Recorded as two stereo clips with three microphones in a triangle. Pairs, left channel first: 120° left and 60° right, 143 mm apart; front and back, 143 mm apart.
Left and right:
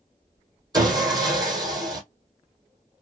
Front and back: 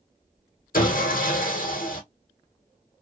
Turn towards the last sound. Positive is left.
turn(degrees=0)